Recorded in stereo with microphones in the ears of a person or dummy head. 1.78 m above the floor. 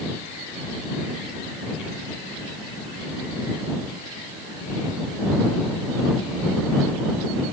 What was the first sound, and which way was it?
Only background noise.